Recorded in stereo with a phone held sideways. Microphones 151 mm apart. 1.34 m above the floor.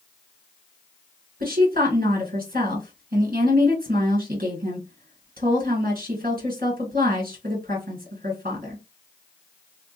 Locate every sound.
1.4 s a woman speaking: 65° right (ahead or behind), 1.8 m